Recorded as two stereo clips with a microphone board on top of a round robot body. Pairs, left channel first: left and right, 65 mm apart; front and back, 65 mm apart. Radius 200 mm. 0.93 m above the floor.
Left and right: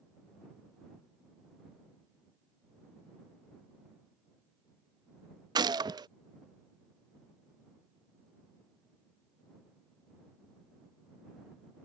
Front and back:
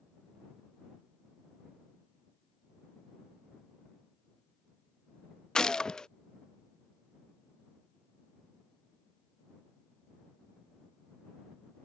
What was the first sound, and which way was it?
A gunshot, 80° right.